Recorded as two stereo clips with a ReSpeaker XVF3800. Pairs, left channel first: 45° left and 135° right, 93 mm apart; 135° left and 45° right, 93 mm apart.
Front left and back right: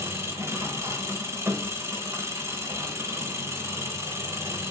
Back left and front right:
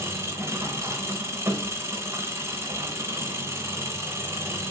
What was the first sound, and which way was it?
An engine running, 90° right.